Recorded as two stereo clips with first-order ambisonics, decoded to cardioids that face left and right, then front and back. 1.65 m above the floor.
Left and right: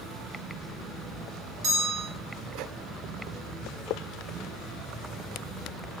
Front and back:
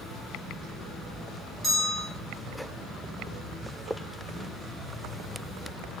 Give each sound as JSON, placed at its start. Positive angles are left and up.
{"t": 1.6, "sound": "a bell", "azimuth_deg": -80, "distance_m": 3.0}